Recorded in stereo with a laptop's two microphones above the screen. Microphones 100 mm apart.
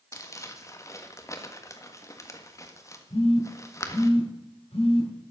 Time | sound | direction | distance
0.1 | crumpling | 30° left (ahead or behind) | 1.5 m
3.1 | a phone buzzing | 90° left | 6.5 m